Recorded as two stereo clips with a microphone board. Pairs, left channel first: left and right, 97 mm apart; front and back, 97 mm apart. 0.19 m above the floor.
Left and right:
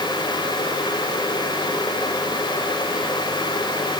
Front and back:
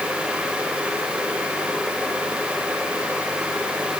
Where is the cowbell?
No cowbell in this recording.